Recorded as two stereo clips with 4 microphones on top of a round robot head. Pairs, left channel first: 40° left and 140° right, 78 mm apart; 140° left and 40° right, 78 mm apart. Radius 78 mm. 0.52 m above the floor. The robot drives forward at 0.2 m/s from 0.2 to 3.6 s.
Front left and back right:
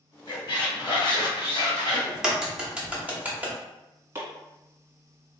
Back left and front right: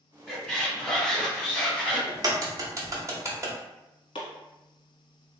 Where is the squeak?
60° left, 1.6 m; by 2.0 s 70° left, 1.5 m.